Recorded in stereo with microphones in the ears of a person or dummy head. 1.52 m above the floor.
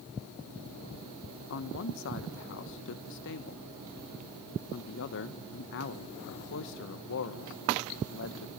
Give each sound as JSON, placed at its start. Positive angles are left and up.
{"t": 1.5, "sound": "a man speaking", "side_deg": 65, "distance_m": 1.2}